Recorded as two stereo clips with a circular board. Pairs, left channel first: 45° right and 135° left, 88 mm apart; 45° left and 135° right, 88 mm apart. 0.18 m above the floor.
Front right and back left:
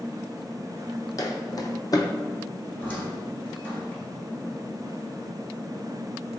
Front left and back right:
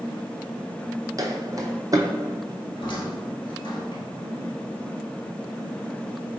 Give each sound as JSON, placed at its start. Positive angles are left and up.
{"t": 1.2, "sound": "footsteps", "azimuth_deg": -90, "distance_m": 0.5}
{"t": 2.8, "sound": "a squeak", "azimuth_deg": 25, "distance_m": 1.3}